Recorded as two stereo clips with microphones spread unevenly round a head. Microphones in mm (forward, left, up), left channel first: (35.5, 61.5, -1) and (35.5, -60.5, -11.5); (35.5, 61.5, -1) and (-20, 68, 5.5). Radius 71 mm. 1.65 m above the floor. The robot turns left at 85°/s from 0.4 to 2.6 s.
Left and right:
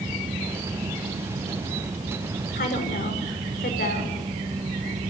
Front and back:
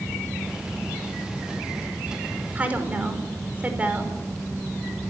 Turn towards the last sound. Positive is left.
turn(degrees=110)